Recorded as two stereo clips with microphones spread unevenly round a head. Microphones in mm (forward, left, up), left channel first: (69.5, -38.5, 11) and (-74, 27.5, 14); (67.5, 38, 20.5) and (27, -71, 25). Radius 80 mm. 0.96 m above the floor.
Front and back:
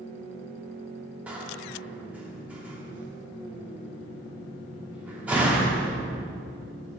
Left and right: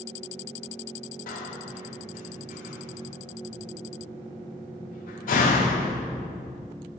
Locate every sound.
1.3 s a door slam: 75° left, 1.5 m